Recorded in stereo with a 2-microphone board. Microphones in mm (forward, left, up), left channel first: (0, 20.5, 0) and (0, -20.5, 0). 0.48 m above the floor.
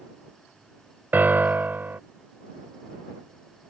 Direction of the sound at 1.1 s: 50° right (ahead or behind).